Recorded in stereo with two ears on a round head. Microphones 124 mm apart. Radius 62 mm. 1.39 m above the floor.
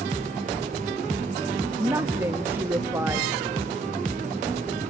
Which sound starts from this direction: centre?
A woman speaking, at 1.8 s.